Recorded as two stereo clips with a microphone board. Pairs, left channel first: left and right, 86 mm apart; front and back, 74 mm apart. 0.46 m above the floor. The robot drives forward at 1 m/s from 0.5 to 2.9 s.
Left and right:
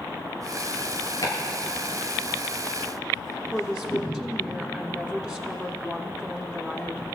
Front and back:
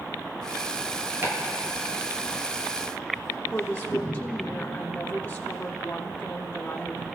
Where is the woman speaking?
5° left, 1.0 m.